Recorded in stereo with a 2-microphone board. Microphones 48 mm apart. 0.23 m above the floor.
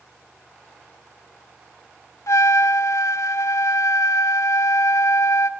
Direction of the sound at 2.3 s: 85° left.